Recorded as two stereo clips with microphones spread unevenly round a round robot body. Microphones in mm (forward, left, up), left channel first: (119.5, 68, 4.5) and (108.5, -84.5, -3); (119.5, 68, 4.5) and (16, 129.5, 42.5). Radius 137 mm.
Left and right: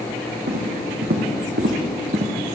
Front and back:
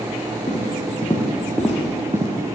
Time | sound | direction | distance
0.5 | footsteps | 100° right | 2.5 m